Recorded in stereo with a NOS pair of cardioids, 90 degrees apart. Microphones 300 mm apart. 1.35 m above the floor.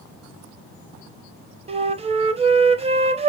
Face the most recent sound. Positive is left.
turn(degrees=-20)